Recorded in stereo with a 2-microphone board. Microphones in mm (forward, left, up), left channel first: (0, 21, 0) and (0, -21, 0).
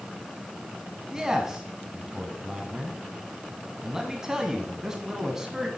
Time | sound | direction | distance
1.1 | a man speaking | 15° right (ahead or behind) | 1.1 m